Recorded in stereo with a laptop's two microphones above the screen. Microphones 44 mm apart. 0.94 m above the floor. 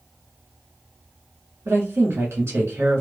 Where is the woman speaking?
75° right (ahead or behind), 1.6 m.